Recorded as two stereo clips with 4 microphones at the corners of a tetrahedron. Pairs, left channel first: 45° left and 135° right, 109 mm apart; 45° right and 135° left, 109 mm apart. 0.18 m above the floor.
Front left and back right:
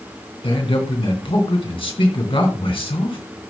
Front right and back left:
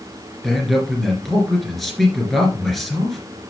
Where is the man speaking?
45° left, 2.5 m.